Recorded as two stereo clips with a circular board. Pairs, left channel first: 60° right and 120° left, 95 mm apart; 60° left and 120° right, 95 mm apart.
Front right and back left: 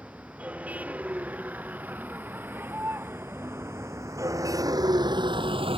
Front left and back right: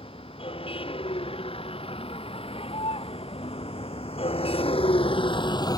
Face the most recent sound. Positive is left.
turn(degrees=110)